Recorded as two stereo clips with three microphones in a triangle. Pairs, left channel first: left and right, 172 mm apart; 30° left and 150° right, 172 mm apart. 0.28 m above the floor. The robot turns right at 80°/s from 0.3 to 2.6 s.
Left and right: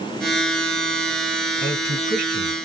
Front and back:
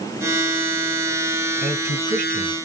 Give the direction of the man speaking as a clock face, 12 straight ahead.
5 o'clock.